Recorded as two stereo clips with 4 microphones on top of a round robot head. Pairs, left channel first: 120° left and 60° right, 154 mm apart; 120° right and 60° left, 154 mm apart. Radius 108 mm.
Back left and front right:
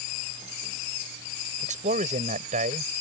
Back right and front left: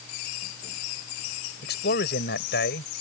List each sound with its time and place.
1.6 s a man speaking: 100° right